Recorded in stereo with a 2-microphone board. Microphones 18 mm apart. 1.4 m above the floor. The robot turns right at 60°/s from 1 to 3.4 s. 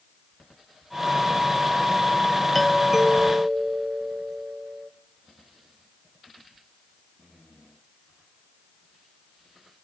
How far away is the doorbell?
About 1.3 m.